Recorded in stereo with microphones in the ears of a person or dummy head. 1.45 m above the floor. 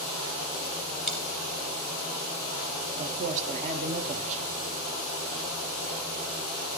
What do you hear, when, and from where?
1.1 s a dropped coin: 5° left (ahead or behind), 1.3 m
3.0 s a man speaking: 40° right (ahead or behind), 0.8 m